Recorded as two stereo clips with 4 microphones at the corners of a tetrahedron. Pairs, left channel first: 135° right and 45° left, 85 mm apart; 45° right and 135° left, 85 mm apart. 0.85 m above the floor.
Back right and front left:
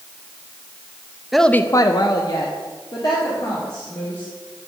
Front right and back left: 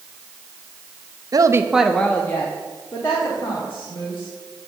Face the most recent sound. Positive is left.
turn(degrees=-90)